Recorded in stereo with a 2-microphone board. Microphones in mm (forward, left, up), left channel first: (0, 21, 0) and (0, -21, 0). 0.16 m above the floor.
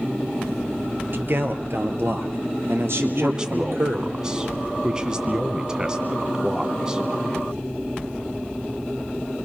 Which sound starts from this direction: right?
A man speaking, at 1.1 s.